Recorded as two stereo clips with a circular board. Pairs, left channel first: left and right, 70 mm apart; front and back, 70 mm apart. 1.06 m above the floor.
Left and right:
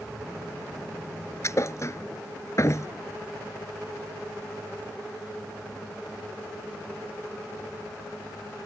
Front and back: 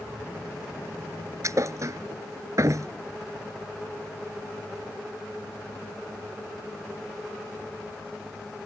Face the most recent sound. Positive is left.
turn(degrees=135)